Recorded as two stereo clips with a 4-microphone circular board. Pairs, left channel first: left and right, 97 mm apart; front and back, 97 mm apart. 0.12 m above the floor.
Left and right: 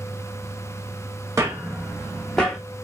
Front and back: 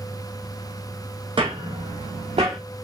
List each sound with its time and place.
1.4 s footsteps: 150° right, 0.6 m; by 2.6 s 170° left, 1.0 m